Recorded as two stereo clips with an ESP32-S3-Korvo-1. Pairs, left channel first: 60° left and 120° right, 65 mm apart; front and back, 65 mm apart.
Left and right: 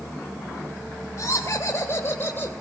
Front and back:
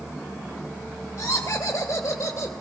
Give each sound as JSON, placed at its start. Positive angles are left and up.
{"t": 1.2, "sound": "laughter", "azimuth_deg": 30, "distance_m": 2.5}